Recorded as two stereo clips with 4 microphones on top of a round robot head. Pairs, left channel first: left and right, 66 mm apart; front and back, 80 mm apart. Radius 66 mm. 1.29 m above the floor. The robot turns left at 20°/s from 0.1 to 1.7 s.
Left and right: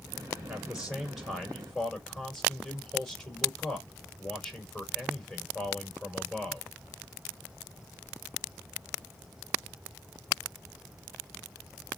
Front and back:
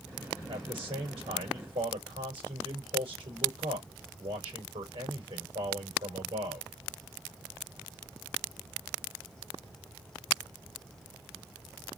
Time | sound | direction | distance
0.5 | a man speaking | 170° right | 5.5 m